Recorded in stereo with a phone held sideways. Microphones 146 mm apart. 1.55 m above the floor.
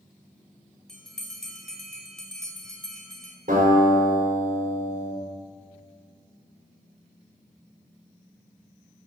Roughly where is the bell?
Centre.